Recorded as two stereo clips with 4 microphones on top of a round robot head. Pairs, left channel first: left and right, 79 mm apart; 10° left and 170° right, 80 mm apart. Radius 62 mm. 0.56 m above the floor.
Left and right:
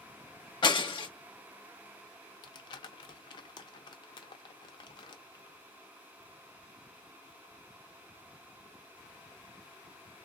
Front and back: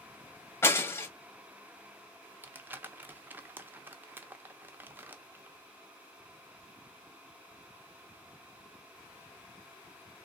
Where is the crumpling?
120° left, 0.7 m.